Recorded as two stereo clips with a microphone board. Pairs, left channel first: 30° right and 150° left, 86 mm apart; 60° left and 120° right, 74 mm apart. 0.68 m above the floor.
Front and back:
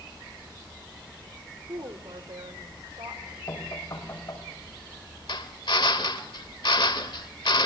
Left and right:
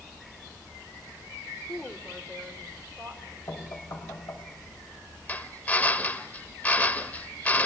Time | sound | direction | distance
1.7 | a woman speaking | 145° left | 2.5 m
3.5 | knocking | 20° left | 3.5 m
5.3 | a drill | 5° right | 1.1 m